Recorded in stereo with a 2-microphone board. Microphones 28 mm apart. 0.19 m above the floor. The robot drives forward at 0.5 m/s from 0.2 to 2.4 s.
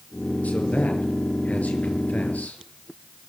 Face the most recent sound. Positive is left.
turn(degrees=65)  # may be behind; listen again after turning